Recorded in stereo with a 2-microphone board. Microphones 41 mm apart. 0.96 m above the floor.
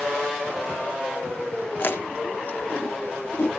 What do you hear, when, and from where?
1.8 s chewing: 50° left (ahead or behind), 1.1 m